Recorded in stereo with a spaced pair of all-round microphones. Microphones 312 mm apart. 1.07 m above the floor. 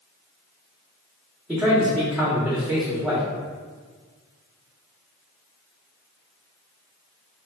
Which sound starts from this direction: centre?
A man speaking, at 1.5 s.